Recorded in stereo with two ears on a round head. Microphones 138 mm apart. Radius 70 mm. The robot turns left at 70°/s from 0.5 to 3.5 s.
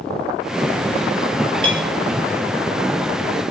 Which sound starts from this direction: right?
A clink, at 1.6 s.